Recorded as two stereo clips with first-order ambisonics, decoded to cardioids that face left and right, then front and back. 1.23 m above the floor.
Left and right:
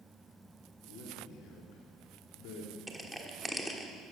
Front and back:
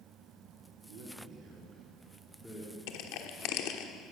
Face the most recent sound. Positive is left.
turn(degrees=0)